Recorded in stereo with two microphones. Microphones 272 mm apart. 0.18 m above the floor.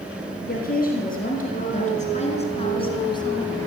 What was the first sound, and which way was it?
A woman speaking, 35° left (ahead or behind).